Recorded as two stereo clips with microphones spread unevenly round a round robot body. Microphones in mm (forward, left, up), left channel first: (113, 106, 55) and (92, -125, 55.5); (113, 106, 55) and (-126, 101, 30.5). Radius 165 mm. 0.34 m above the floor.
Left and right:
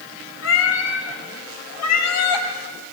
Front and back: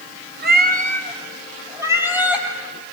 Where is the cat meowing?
135° left, 2 m; by 2.5 s 95° left, 3.5 m.